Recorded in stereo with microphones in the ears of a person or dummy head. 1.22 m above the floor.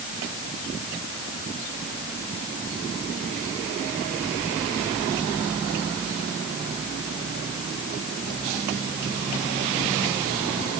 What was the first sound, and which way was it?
Only background noise.